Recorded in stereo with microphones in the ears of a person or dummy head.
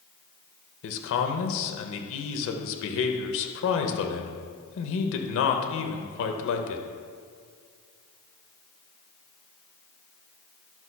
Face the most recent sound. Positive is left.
turn(degrees=75)  # may be behind; listen again after turning